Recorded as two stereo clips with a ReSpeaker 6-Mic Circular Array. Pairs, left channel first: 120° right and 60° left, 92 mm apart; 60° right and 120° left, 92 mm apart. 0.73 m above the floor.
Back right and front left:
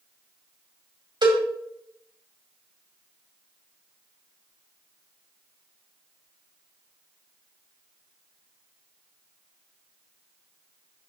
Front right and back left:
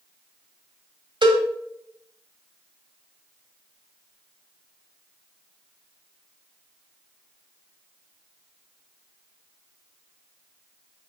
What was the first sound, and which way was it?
A cowbell, 95° left.